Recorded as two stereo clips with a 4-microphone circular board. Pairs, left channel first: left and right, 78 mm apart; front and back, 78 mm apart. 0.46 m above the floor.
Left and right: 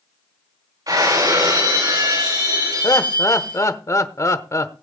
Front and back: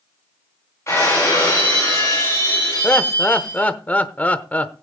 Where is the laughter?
65° left, 1.0 m.